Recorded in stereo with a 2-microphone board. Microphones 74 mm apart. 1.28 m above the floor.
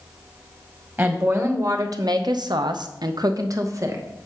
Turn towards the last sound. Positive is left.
turn(degrees=-40)  # may be behind; listen again after turning